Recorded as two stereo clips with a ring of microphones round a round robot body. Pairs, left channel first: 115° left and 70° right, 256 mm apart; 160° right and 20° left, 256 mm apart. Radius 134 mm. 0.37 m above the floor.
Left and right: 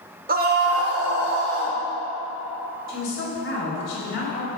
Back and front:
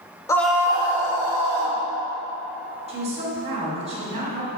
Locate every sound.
0.3 s a scream: 90° right, 1.0 m; by 1.8 s 15° right, 2 m
2.9 s a woman speaking: 85° left, 2 m